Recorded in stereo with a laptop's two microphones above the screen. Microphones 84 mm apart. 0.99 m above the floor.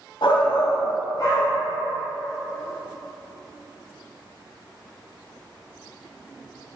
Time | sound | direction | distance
0.2 | a shout | 70° left (ahead or behind) | 0.7 m